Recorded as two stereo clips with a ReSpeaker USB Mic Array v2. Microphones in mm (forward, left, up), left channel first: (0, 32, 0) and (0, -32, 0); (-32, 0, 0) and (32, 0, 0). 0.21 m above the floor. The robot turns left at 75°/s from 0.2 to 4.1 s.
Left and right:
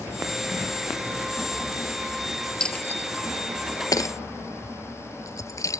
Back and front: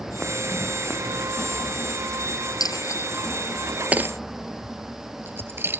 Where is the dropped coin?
165° left; by 5.8 s 55° left.